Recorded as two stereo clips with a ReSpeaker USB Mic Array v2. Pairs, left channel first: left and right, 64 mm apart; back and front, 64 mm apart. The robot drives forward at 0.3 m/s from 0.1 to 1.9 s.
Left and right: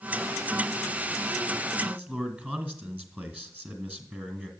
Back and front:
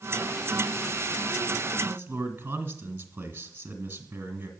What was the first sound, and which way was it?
A man speaking, 40° right.